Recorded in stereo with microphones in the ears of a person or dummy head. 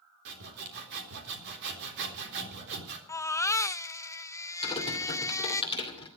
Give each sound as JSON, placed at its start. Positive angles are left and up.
{"t": 0.2, "sound": "sawing", "side_deg": -60, "distance_m": 3.5}
{"t": 3.1, "sound": "a baby crying", "side_deg": 15, "distance_m": 0.6}
{"t": 4.6, "sound": "typing on a keyboard", "side_deg": 25, "distance_m": 2.5}